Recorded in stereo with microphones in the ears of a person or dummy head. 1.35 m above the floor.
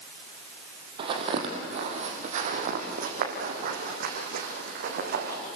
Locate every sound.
1.0 s footsteps: 30° right (ahead or behind), 2.5 m; by 5.4 s 55° right (ahead or behind), 4.5 m